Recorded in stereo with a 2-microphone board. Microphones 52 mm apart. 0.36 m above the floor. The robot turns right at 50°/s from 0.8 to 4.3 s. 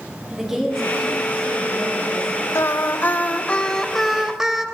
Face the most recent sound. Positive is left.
turn(degrees=-165)